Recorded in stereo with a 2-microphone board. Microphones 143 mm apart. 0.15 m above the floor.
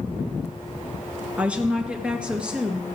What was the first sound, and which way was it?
A woman speaking, 10° right (ahead or behind).